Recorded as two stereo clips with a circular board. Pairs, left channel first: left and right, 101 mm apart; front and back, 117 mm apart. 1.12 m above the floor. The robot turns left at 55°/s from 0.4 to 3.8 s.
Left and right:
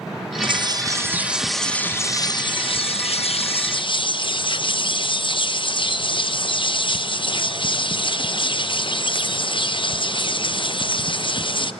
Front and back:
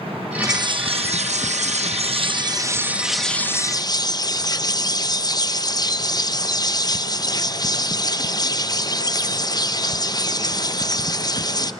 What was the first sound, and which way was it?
A bird, 120° right.